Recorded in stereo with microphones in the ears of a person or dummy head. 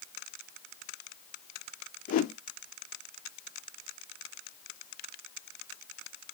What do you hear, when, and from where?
2.1 s a whoosh: 50° left (ahead or behind), 0.5 m